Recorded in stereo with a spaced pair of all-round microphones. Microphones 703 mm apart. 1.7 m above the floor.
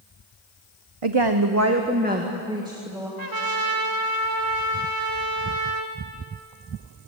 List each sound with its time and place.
1.0 s a woman speaking: 50° right (ahead or behind), 1.0 m; by 3.1 s 5° right (ahead or behind), 3.5 m
3.2 s a trumpet: 30° right (ahead or behind), 2 m